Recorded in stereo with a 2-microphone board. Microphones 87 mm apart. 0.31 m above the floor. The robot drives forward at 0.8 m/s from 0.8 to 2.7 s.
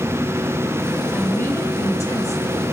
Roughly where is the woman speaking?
Left.